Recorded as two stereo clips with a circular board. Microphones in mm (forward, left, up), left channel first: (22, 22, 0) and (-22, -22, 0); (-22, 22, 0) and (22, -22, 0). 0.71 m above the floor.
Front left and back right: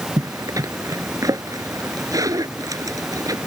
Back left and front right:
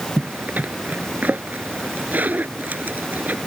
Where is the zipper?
110° right.